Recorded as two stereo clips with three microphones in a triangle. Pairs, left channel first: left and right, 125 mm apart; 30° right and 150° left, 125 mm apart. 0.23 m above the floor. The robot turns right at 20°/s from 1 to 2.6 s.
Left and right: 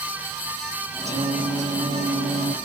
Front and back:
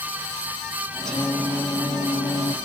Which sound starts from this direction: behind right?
Singing, at 1.1 s.